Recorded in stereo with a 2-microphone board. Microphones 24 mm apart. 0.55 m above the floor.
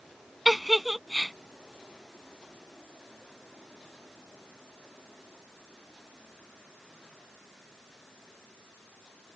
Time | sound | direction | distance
0.5 | a giggle | 5° right (ahead or behind) | ?